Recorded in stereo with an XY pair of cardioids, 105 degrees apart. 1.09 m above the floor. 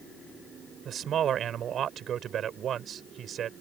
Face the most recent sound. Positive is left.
turn(degrees=-60)